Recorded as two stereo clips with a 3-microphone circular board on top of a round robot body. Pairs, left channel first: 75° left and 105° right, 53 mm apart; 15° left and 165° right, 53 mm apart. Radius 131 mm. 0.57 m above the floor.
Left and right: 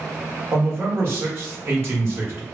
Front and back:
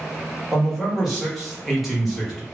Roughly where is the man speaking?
Right.